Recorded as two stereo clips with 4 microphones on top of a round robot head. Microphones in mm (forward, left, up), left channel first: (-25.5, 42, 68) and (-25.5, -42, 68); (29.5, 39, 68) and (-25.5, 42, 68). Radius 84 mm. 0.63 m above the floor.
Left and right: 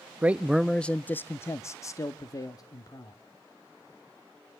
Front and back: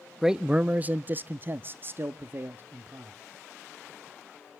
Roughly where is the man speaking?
Right.